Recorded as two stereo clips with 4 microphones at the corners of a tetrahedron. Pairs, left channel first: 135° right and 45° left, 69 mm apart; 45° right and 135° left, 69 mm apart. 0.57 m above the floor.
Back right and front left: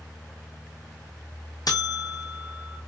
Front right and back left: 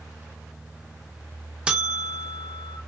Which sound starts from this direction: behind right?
A buzzer, at 1.7 s.